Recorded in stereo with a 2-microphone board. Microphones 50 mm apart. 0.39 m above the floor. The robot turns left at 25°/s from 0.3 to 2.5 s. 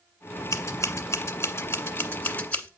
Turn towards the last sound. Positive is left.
turn(degrees=30)  # may be behind; listen again after turning